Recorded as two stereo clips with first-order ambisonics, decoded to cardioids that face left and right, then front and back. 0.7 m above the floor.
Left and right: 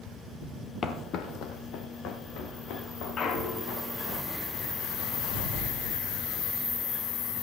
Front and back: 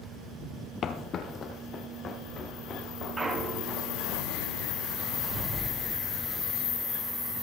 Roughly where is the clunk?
Behind left.